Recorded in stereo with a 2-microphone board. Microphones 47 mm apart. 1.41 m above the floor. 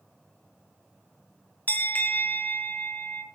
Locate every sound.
1.7 s a bell: 35° left (ahead or behind), 0.6 m